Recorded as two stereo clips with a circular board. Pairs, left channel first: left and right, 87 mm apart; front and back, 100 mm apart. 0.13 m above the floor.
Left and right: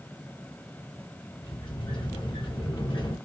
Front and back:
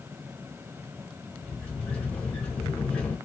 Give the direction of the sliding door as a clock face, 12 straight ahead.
9 o'clock.